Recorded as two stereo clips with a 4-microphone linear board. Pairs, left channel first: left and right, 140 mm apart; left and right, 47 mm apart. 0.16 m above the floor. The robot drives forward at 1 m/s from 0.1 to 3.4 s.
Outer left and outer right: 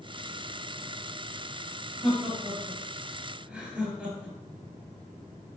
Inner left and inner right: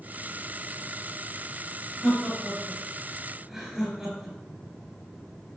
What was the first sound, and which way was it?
Laughter, 5° right (ahead or behind).